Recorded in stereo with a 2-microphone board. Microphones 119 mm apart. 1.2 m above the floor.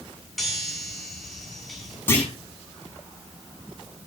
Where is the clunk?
15° left (ahead or behind), 7.5 m.